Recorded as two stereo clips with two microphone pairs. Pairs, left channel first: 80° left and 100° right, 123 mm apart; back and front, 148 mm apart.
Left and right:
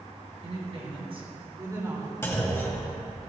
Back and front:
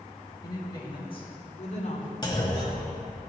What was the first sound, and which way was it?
A woman speaking, 120° right.